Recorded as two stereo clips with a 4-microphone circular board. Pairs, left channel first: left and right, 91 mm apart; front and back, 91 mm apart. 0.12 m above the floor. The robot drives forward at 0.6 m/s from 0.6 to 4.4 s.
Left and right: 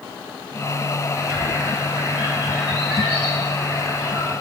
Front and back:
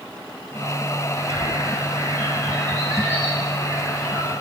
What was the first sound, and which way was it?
A bird, 150° right.